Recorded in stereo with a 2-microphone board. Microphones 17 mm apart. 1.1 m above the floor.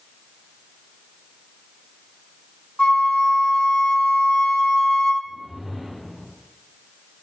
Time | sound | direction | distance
2.8 | a flute | 75° left (ahead or behind) | 0.9 m
5.2 | a whoosh | 35° right (ahead or behind) | 2.5 m